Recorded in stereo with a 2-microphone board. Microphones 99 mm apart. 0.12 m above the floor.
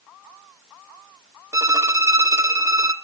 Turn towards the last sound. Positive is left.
turn(degrees=-30)  # may be behind; listen again after turning